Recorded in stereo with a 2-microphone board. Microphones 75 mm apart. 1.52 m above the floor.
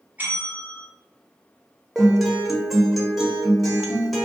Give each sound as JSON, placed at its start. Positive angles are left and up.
{"t": 0.2, "sound": "a bell", "side_deg": -20, "distance_m": 1.1}
{"t": 1.9, "sound": "a guitar", "side_deg": -5, "distance_m": 0.6}